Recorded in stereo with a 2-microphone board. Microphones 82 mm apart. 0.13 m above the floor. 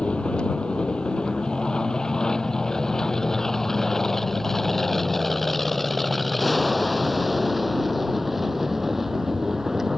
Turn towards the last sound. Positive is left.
turn(degrees=-5)  # may be behind; listen again after turning